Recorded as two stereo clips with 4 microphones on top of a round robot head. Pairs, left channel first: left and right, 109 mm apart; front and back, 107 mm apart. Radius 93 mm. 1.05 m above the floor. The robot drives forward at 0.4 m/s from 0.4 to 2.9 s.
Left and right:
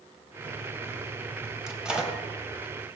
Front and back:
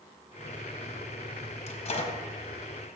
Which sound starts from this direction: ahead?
A microwave, at 1.7 s.